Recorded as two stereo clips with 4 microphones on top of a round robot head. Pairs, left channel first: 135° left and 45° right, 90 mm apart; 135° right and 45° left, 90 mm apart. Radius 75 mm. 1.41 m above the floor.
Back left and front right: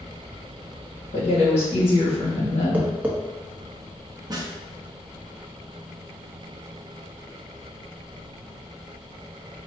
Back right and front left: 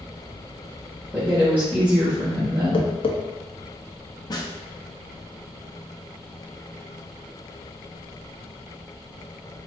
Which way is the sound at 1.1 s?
120° left.